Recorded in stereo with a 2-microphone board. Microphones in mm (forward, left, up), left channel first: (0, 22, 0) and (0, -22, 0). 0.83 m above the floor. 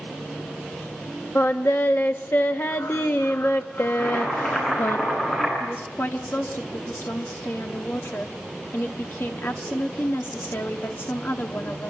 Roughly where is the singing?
Left.